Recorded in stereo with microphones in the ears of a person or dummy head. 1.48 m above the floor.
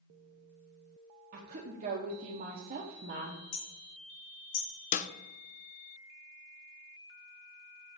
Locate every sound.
1.3 s a woman speaking: 40° right (ahead or behind), 1.0 m
3.5 s hammering: 65° left (ahead or behind), 1.3 m
4.9 s a snare drum: 40° left (ahead or behind), 0.5 m